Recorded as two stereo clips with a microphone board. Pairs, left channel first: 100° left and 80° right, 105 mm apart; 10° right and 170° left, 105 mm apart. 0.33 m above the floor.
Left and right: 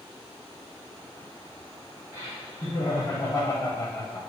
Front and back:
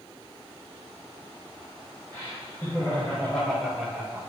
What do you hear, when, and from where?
2.1 s laughter: 45° left, 2.5 m; by 4.3 s 130° left, 1.4 m